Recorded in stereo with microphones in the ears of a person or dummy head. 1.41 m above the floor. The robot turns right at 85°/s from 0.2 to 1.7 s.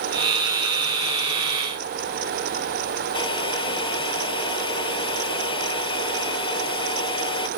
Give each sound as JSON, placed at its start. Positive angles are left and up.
{"t": 3.1, "sound": "a hair dryer", "side_deg": 30}